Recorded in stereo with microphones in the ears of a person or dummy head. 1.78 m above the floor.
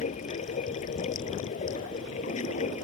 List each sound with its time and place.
0.0 s running water: 40° left (ahead or behind)